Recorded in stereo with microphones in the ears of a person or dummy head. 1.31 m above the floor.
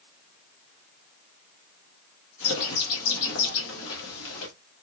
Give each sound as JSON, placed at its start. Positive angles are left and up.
{"t": 2.4, "sound": "a bird", "side_deg": 80, "distance_m": 1.1}